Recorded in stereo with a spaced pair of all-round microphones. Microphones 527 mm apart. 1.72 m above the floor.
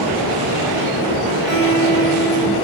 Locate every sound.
1.5 s a guitar: 45° right (ahead or behind), 2 m